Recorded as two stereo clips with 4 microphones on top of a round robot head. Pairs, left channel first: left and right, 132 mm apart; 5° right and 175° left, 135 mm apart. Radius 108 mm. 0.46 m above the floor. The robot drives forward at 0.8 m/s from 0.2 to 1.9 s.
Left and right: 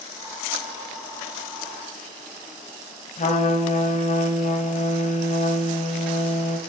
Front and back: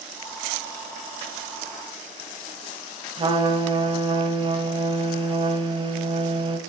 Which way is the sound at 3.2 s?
125° left.